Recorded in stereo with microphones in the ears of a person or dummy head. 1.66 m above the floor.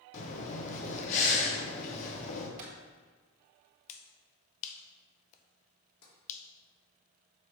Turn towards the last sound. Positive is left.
turn(degrees=80)